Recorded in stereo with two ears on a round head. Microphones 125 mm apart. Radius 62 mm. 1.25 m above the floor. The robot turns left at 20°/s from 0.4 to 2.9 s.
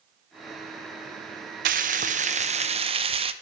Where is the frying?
65° right (ahead or behind), 0.5 m; by 3.3 s 40° right (ahead or behind), 0.5 m.